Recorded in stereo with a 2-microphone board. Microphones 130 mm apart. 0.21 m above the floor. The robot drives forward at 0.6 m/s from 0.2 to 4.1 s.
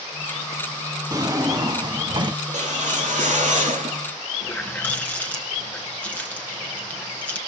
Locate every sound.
1.1 s a drawer: 25° right (ahead or behind), 1.2 m; by 2.4 s 35° right (ahead or behind), 0.9 m
2.5 s a whoosh: 65° right (ahead or behind), 4 m; by 4.0 s 75° right (ahead or behind), 4 m
4.4 s a running tap: 10° left (ahead or behind), 1.9 m